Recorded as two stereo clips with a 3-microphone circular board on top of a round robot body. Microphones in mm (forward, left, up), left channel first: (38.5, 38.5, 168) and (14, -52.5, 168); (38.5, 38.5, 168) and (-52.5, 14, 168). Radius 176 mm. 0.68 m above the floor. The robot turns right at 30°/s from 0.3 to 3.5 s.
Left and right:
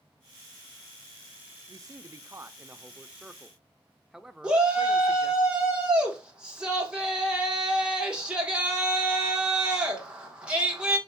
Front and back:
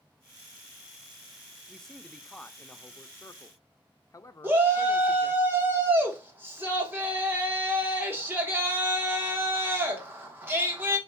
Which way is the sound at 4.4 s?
165° right.